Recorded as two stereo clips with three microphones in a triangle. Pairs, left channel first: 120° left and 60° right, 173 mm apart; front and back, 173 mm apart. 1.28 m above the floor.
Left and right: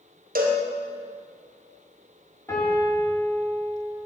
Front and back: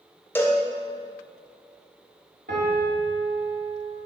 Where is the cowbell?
75° right, 0.9 m.